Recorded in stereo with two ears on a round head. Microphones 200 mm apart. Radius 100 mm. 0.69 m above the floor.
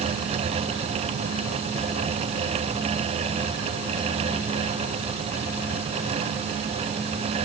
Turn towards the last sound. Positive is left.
No sound to turn to.